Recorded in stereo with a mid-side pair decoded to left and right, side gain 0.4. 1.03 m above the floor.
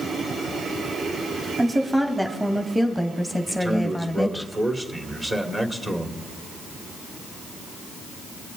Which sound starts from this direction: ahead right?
A man speaking, at 3.5 s.